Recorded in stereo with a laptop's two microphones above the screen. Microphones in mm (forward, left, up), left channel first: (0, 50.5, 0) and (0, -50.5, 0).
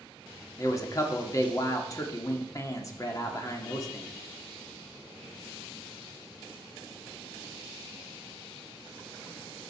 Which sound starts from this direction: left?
A man speaking, at 0.6 s.